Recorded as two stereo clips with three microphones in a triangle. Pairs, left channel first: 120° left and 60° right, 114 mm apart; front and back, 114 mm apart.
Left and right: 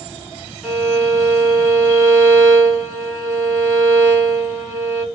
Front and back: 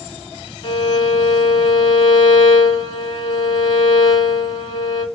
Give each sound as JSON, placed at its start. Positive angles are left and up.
{"t": 0.6, "sound": "a violin", "azimuth_deg": 35, "distance_m": 1.9}